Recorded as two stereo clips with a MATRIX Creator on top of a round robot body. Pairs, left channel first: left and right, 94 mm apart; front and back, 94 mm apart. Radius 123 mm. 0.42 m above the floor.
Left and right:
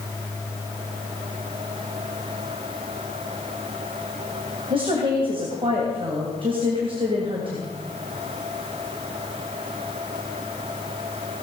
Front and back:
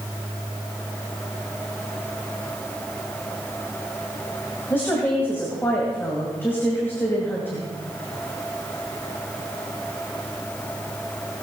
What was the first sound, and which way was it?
A woman speaking, 70° right.